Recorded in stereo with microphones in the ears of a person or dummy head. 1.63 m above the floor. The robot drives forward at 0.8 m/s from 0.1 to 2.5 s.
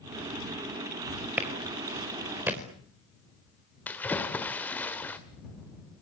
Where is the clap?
10° right (ahead or behind), 5 m.